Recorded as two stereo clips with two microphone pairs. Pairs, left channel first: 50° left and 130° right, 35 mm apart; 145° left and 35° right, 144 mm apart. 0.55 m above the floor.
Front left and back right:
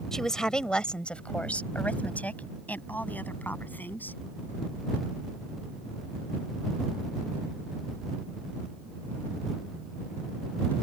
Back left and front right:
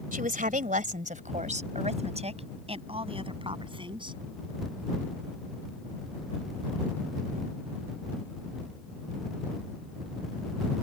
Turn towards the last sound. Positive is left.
turn(degrees=20)